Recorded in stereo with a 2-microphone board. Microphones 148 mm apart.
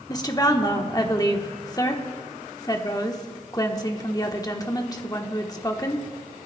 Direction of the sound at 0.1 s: 25° left (ahead or behind).